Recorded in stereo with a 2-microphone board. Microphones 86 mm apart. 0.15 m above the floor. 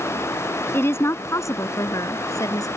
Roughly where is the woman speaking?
Left.